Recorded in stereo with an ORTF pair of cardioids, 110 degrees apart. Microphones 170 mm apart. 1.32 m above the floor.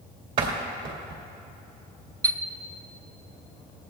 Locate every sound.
0.4 s a door slam: 60° right, 2.5 m
2.2 s a chime: 20° right, 0.5 m